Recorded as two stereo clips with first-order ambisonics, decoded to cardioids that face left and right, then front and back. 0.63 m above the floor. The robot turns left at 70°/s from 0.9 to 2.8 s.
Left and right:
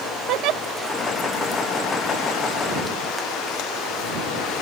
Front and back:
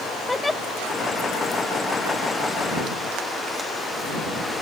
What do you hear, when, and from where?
0.3 s a giggle: 80° right